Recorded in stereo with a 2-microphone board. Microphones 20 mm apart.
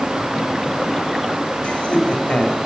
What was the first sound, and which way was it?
Laughter, 85° left.